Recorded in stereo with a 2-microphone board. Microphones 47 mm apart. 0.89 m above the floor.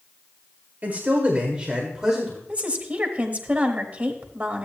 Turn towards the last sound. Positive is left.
turn(degrees=-25)  # may be behind; listen again after turning